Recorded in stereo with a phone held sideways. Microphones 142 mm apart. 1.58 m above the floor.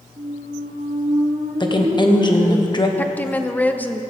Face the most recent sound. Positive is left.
turn(degrees=10)  # may be behind; listen again after turning